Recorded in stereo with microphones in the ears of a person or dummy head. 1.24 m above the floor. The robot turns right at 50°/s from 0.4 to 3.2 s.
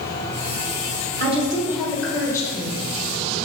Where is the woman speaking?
40° right, 1.2 m; by 2.8 s 35° left, 1.2 m.